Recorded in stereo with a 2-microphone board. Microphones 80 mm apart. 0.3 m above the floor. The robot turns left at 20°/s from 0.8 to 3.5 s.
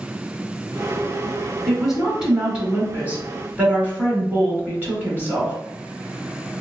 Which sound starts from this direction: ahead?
A woman speaking, at 1.7 s.